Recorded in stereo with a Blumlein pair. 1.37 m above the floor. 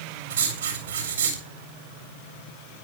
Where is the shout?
No shout in this recording.